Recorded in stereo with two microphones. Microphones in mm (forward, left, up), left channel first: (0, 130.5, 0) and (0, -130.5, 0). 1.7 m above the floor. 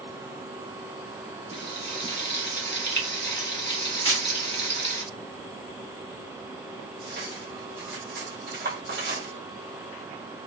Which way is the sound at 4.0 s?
70° left (ahead or behind).